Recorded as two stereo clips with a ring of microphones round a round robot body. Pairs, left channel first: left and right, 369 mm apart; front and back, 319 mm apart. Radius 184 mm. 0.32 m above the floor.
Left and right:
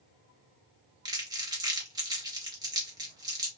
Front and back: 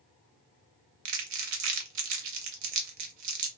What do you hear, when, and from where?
1.1 s crumpling: 170° right, 0.6 m